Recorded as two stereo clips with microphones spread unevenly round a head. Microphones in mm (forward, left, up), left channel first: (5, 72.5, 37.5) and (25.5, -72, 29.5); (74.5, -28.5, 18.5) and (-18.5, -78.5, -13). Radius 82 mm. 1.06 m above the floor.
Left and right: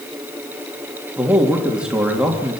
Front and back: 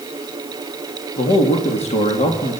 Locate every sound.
1.2 s a man speaking: straight ahead, 2.5 m